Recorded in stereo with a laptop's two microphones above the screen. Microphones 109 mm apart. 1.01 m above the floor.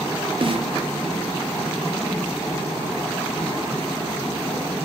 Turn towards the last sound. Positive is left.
turn(degrees=-55)  # may be behind; listen again after turning